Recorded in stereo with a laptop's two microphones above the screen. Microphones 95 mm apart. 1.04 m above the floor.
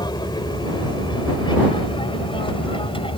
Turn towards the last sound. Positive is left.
turn(degrees=65)  # may be behind; listen again after turning